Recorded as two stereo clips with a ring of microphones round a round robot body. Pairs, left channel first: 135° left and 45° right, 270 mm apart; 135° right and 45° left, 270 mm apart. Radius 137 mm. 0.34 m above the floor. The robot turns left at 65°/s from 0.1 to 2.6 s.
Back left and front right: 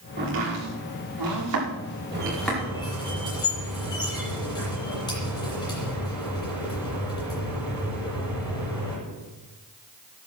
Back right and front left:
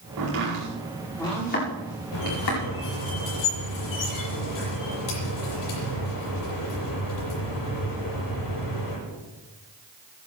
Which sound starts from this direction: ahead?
Chopping, at 0.2 s.